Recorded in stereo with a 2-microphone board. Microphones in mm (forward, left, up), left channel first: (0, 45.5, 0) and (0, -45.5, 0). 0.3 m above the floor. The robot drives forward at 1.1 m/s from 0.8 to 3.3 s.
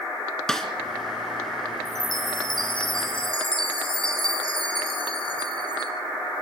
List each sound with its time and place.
0.5 s a snare drum: 5° left (ahead or behind), 2.5 m
1.9 s a chime: 50° left (ahead or behind), 4 m; by 5.9 s 70° left (ahead or behind), 3 m